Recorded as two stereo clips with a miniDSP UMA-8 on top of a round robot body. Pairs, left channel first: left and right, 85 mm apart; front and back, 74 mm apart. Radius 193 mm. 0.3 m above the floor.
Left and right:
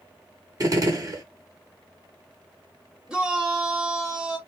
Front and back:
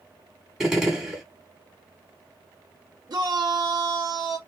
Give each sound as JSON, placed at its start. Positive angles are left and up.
{"t": 0.6, "sound": "a gunshot", "azimuth_deg": -100, "distance_m": 1.9}
{"t": 3.1, "sound": "a shout", "azimuth_deg": -175, "distance_m": 1.2}